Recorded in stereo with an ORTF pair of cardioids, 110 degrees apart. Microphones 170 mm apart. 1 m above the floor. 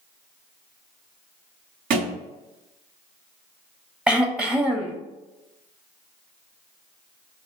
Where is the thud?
65° right, 1.7 m.